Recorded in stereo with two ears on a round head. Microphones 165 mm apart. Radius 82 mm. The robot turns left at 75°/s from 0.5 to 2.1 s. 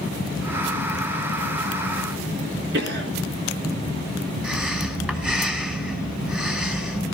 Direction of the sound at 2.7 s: 65° right (ahead or behind).